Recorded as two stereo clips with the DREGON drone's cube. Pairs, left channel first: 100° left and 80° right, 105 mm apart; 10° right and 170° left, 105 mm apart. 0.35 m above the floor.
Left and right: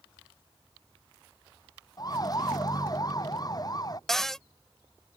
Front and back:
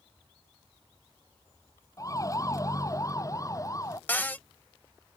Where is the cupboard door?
20° left.